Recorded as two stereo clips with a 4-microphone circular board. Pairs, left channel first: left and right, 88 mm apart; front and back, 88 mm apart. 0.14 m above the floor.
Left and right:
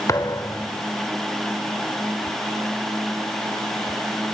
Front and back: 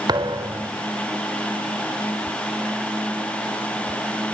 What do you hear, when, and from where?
0.1 s a thud: 145° left, 1.8 m